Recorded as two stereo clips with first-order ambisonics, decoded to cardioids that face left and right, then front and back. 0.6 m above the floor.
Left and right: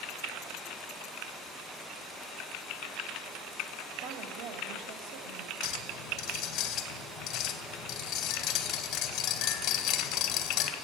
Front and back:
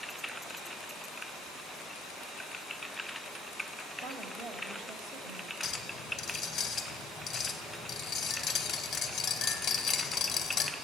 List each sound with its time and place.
4.0 s a woman speaking: 85° right, 2.5 m
5.6 s a clink: 50° left, 2 m